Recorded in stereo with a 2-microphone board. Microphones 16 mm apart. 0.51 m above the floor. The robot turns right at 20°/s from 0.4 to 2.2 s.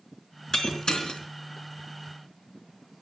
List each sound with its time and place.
0.5 s breaking glass: 50° left (ahead or behind), 3.5 m; by 1.2 s 60° left (ahead or behind), 3.5 m